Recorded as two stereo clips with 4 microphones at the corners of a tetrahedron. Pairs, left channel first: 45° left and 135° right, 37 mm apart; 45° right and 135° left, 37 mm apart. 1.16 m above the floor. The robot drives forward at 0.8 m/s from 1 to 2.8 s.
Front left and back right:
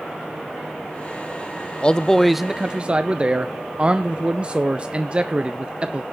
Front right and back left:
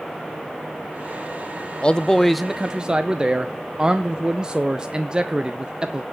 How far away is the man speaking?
About 0.6 m.